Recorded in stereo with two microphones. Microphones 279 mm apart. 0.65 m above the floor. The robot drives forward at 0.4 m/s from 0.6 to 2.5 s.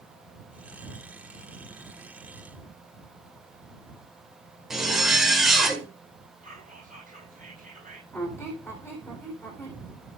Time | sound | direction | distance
4.7 | a zipper | centre (ahead or behind) | 2 m
6.4 | whispering | 30° right (ahead or behind) | 6.5 m
8.1 | a squeak | 10° left (ahead or behind) | 4 m